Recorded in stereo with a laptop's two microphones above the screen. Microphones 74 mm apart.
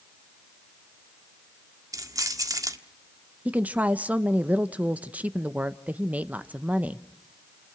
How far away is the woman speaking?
About 0.8 m.